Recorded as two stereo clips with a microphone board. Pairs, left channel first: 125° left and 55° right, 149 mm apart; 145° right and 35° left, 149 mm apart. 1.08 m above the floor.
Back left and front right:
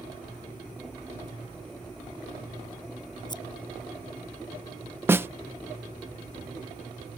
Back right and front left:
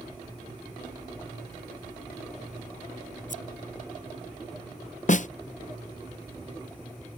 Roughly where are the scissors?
Behind.